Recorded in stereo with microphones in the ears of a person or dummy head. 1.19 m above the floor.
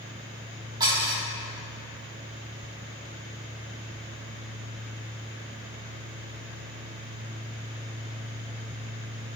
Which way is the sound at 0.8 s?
30° right (ahead or behind).